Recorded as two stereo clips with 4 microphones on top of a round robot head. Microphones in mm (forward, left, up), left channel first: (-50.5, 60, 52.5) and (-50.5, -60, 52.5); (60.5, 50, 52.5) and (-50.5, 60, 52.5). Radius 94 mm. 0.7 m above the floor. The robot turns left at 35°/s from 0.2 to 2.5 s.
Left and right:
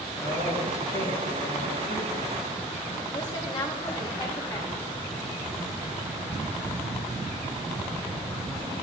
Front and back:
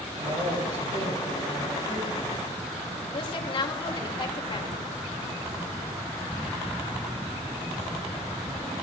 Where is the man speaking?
175° left, 8 m; by 3.0 s 95° left, 8 m.